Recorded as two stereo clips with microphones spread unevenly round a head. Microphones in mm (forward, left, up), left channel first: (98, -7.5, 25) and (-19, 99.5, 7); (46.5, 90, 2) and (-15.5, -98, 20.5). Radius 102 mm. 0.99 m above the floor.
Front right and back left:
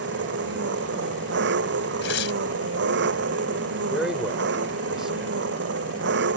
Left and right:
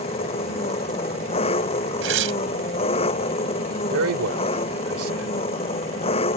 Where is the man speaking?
135° right.